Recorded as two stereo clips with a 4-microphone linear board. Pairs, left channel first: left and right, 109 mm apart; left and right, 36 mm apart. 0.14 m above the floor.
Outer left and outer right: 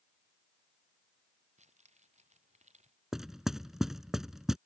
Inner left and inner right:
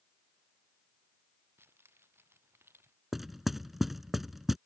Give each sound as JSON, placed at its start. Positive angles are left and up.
{"t": 1.6, "sound": "keys jangling", "side_deg": -80}
{"t": 3.1, "sound": "knocking", "side_deg": -5}